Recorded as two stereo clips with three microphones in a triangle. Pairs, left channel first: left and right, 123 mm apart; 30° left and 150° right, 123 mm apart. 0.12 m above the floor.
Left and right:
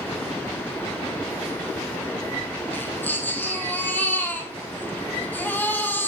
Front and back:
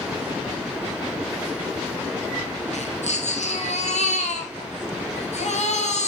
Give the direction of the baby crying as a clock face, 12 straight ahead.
11 o'clock.